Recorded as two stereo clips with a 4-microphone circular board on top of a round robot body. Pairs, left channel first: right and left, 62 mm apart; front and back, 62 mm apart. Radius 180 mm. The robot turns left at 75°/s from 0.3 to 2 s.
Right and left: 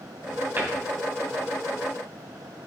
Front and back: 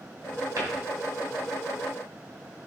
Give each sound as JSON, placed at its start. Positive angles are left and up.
{"t": 0.6, "sound": "a cupboard door", "azimuth_deg": 150, "distance_m": 2.5}